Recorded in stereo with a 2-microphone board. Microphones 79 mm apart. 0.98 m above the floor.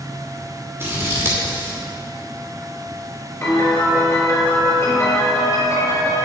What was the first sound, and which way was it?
Scissors, 30° right (ahead or behind).